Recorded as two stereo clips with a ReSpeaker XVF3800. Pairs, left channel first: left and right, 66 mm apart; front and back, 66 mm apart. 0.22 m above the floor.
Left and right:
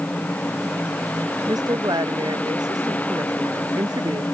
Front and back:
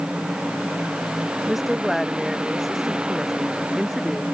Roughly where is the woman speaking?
Right.